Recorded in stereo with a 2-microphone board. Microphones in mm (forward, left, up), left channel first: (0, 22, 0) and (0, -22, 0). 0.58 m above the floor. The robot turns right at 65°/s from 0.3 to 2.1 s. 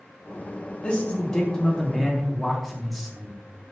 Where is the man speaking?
25° left (ahead or behind), 0.8 m; by 3.4 s centre (ahead or behind), 0.8 m.